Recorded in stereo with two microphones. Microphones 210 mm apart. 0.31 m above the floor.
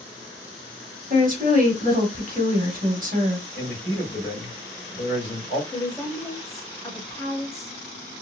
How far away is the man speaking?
About 2.0 m.